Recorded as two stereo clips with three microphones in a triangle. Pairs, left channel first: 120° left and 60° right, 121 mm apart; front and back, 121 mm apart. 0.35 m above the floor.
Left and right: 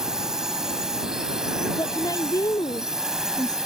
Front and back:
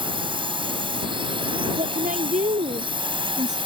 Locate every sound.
0.0 s a drone: 145° right
1.8 s a woman speaking: straight behind